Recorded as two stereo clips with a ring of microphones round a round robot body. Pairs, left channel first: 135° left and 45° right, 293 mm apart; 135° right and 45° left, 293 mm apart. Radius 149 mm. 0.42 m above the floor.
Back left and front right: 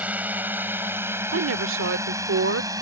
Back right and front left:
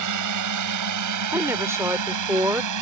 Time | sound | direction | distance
0.0 | a drone | 40° left | ?
1.3 | a woman speaking | 30° right | ?